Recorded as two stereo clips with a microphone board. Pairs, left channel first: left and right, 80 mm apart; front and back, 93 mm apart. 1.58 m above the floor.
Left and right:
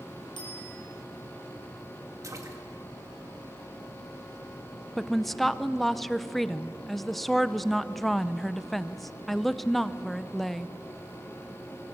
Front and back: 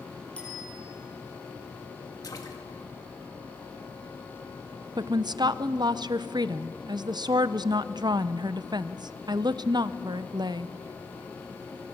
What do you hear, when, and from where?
0.4 s a bicycle bell: 75° left, 5.5 m
2.2 s a splash: 45° right, 2.0 m
5.0 s a woman speaking: 175° left, 0.6 m